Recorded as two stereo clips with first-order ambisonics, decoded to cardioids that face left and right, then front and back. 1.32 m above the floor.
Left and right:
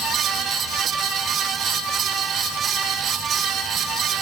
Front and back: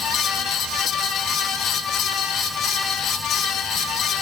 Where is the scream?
I don't hear a scream.